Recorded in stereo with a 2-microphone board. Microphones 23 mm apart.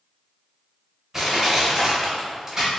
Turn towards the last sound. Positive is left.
turn(degrees=-20)  # may be behind; listen again after turning